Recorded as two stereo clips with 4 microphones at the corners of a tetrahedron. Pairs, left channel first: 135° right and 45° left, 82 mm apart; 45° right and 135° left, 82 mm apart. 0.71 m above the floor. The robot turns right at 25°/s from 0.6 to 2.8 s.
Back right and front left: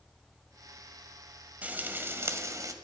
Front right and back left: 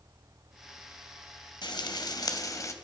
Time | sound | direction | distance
1.6 | frying | 25° right | 1.5 m